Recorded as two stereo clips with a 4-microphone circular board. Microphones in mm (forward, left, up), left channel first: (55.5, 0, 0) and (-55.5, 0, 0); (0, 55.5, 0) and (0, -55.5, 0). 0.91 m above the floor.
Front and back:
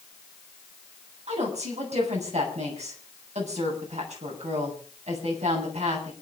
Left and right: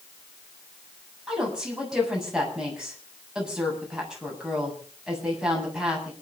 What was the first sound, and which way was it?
A woman speaking, 175° right.